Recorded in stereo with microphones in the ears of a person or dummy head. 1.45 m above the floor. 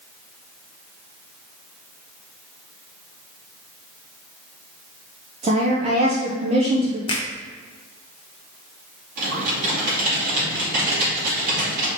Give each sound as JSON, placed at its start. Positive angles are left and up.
{"t": 5.4, "sound": "a woman speaking", "side_deg": -35, "distance_m": 0.6}
{"t": 7.1, "sound": "a finger snap", "side_deg": 20, "distance_m": 0.6}
{"t": 9.2, "sound": "typing on a keyboard", "side_deg": -50, "distance_m": 2.0}